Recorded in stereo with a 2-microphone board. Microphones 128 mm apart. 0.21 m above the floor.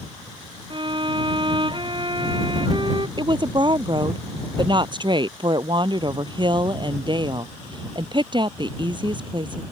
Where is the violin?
40° right (ahead or behind).